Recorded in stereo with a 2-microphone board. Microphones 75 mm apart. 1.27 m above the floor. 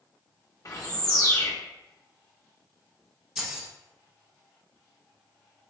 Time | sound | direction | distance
0.7 | a bird | 50° left (ahead or behind) | 0.8 m
3.4 | keys jangling | 10° right (ahead or behind) | 0.9 m